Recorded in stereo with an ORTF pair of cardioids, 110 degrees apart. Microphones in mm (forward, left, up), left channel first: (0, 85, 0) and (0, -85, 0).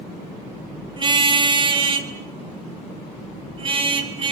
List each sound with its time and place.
1.0 s a car horn: 30° right, 4.5 m; by 4.3 s 35° right, 7 m